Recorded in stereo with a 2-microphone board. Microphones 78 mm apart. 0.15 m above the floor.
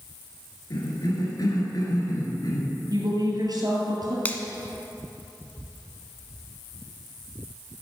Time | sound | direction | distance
0.7 | a cough | 55° left (ahead or behind) | 2 m
2.9 | a woman speaking | 55° right (ahead or behind) | 3 m
4.2 | a finger snap | 20° left (ahead or behind) | 0.9 m